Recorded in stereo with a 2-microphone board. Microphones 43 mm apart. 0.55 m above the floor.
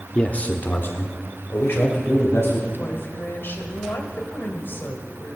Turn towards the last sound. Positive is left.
turn(degrees=60)  # may be behind; listen again after turning